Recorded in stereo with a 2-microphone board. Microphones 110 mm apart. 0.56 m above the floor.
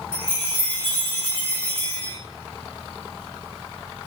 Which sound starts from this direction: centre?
A chime, at 0.1 s.